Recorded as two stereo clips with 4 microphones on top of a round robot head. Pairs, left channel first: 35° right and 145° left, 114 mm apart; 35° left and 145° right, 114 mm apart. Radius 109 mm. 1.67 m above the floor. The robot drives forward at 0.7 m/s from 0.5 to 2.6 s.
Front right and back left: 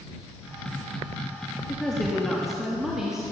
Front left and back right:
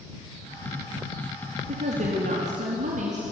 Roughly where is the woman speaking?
Behind right.